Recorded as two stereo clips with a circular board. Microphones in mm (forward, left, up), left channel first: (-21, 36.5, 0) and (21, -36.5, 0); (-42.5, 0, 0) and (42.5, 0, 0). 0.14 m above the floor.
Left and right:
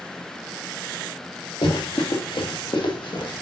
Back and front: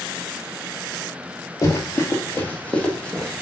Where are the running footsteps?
125° left, 1.5 m; by 3.4 s 100° left, 2.5 m.